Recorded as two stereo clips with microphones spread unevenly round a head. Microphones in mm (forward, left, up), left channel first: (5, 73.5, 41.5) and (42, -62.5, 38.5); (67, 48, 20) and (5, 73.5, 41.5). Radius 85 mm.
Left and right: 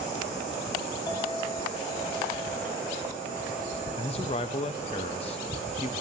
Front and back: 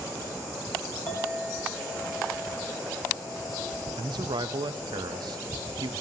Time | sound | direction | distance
1.1 | a clink | 45° left | 1.7 m
4.0 | a man speaking | 160° left | 0.5 m